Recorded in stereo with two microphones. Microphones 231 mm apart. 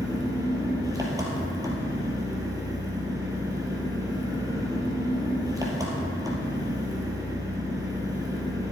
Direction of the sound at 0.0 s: 15° right (ahead or behind).